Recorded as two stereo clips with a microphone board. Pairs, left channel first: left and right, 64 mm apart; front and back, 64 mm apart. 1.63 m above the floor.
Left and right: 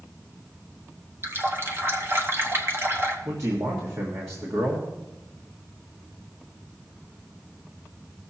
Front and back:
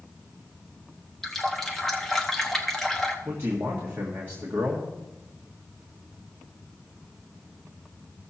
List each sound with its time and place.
1.2 s a running tap: 80° right, 1.0 m
3.2 s a man speaking: 125° right, 1.6 m